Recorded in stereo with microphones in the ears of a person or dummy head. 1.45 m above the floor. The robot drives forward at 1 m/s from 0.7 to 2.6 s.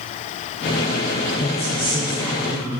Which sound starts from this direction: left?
A woman speaking, at 1.4 s.